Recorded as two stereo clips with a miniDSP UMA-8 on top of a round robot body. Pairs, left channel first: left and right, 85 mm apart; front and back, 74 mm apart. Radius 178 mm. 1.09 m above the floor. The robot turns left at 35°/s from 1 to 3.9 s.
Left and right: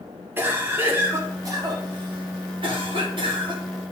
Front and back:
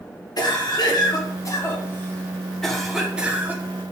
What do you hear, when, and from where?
0.4 s a cough: 25° right, 1.9 m; by 3.9 s 130° right, 1.9 m